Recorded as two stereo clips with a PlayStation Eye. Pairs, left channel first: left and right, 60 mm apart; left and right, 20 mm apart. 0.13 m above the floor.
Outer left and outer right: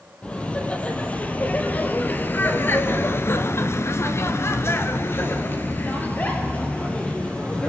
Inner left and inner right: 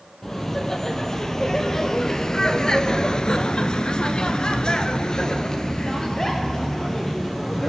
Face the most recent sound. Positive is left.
turn(degrees=20)  # may be behind; listen again after turning